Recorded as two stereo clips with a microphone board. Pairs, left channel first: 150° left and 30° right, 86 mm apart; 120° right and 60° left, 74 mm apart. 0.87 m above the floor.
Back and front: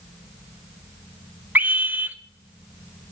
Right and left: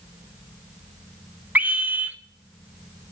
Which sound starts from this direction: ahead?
A scream, at 1.6 s.